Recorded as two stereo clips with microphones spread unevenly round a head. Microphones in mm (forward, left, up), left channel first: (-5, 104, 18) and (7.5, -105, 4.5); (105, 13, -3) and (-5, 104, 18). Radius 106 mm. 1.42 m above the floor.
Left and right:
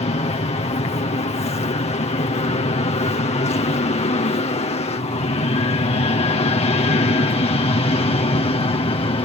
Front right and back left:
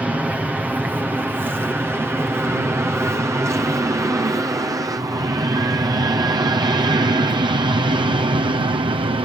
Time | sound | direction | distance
0.0 | an aircraft | 55° left | ?